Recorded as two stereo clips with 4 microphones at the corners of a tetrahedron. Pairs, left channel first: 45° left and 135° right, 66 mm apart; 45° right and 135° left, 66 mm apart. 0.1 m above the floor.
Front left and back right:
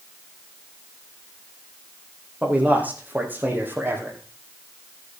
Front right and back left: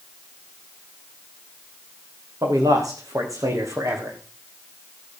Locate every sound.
2.4 s a man speaking: 160° left, 4.5 m; by 4.2 s 175° left, 4 m